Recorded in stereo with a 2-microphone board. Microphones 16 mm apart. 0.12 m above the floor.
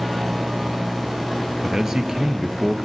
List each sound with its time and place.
1.6 s a man speaking: 40° right (ahead or behind), 1.9 m